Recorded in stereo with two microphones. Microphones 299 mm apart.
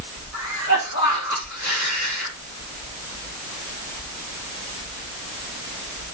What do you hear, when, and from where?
0.3 s a cough: 60° left (ahead or behind), 6 m